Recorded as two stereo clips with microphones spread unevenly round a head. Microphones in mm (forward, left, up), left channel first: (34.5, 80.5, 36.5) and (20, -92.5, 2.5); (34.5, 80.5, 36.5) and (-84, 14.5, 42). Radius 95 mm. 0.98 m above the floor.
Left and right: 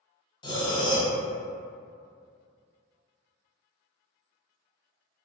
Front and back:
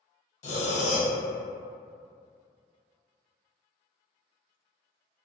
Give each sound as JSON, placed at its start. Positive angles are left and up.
{"t": 0.4, "sound": "breathing", "azimuth_deg": 40, "distance_m": 0.6}